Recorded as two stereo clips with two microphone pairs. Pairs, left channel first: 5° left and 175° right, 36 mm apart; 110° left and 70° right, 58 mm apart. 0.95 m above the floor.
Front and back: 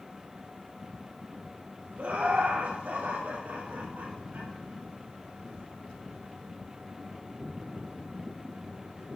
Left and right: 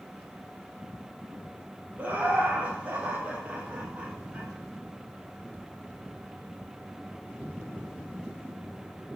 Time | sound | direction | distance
2.0 | laughter | 130° right | 2 m